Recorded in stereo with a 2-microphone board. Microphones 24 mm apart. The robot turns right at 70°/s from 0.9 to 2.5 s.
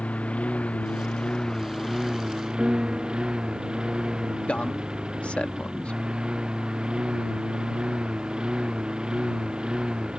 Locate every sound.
0.0 s a lawn mower: 110° left; by 10.2 s 140° right
2.6 s a piano: 30° right (ahead or behind)
4.5 s a man speaking: 70° left (ahead or behind)